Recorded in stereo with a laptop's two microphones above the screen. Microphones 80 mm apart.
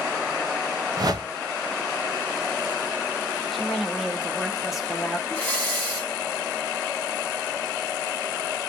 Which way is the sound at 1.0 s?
50° right (ahead or behind).